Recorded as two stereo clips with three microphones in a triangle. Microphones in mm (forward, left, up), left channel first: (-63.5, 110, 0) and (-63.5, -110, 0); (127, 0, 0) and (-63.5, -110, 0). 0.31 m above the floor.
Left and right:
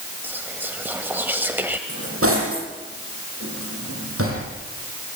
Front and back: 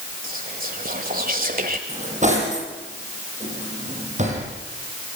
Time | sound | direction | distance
0.2 | whispering | 170° right | 1.5 m
1.9 | cutlery clinking | 95° right | 8 m